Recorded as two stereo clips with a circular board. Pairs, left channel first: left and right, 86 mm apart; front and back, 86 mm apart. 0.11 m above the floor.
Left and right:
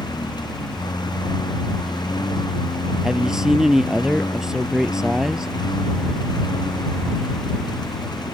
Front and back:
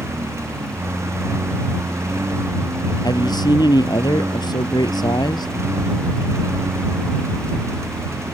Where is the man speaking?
10° right.